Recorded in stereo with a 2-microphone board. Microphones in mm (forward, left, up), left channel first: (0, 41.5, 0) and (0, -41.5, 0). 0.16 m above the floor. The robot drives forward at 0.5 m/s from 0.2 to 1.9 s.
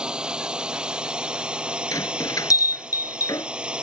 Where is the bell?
45° left (ahead or behind).